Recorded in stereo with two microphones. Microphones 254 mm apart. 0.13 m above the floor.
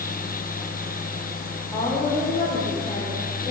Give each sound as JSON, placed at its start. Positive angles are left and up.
{"t": 1.7, "sound": "a woman speaking", "side_deg": 10, "distance_m": 7.5}